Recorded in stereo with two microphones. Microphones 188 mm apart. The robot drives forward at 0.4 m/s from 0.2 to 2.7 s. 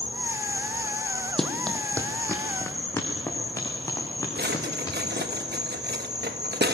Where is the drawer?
55° right (ahead or behind), 1.2 m.